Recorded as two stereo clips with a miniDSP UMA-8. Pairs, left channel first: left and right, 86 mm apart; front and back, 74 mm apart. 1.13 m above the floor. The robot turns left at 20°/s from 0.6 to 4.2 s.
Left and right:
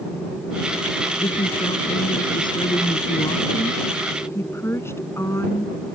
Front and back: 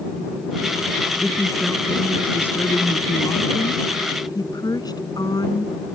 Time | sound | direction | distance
1.2 | a woman speaking | 90° left | ?